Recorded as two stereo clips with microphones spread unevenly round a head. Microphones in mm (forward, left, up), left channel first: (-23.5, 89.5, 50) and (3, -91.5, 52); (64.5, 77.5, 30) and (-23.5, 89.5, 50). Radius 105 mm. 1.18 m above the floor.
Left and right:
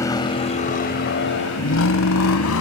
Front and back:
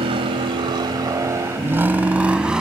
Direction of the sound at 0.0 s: 175° left.